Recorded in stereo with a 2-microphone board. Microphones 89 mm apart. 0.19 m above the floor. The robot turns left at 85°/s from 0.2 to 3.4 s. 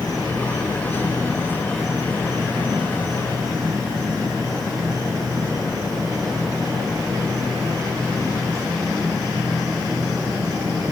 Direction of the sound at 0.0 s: 135° left.